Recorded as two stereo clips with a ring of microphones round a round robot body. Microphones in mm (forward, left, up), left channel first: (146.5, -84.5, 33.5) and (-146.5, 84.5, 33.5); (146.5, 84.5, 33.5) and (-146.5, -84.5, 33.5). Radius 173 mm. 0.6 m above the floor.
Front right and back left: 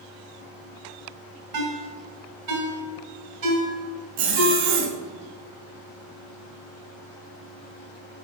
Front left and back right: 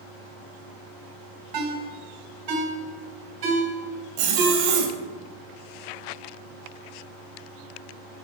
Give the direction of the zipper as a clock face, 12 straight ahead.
6 o'clock.